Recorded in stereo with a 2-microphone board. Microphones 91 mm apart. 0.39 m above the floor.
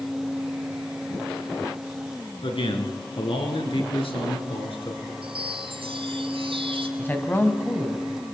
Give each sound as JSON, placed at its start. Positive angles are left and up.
{"t": 2.4, "sound": "a man speaking", "side_deg": 70, "distance_m": 5.0}
{"t": 5.2, "sound": "a chime", "side_deg": -80, "distance_m": 2.5}
{"t": 7.0, "sound": "a man speaking", "side_deg": 20, "distance_m": 3.0}